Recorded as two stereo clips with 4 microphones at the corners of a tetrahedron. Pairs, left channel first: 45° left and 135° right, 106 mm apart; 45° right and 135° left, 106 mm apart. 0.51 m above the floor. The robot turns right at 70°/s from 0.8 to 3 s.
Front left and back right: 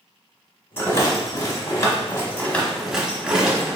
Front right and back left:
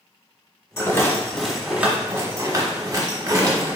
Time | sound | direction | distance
0.8 | a rattle | 5° right | 1.1 m